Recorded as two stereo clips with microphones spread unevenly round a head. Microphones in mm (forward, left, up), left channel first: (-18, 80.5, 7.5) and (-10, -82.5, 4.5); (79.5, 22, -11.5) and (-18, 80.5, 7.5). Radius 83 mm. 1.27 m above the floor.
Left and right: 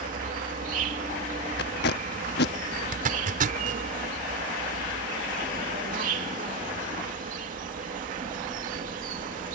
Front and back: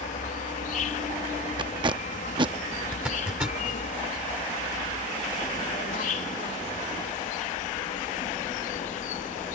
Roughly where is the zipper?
Behind right.